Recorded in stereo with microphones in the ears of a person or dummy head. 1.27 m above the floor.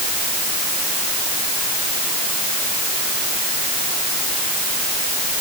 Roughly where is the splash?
I don't hear a splash.